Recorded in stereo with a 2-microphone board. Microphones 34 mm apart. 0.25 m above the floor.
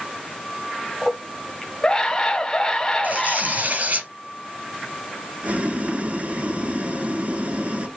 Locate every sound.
1.0 s a scream: 15° left (ahead or behind), 1.2 m
3.0 s tearing paper: 55° right (ahead or behind), 3 m
5.4 s boiling: 55° right (ahead or behind), 1.1 m